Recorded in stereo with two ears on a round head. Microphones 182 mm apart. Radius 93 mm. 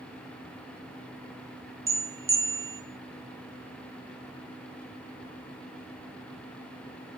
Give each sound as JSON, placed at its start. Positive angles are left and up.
{"t": 1.9, "sound": "a bell", "side_deg": -15, "distance_m": 1.0}